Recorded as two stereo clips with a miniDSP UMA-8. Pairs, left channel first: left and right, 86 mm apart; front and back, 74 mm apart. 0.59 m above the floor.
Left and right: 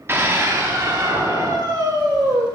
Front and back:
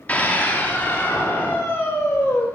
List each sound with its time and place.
0.1 s a scream: 55° right, 1.0 m